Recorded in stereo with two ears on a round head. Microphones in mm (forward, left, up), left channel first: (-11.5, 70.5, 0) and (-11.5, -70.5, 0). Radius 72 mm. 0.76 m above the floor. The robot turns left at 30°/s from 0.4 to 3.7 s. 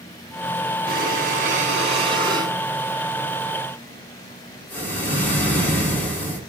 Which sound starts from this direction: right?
Breathing, at 0.9 s.